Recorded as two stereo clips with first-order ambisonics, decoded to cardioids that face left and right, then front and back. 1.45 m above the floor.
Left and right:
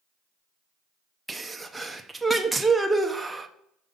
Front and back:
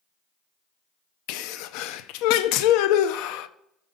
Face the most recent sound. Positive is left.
turn(degrees=-5)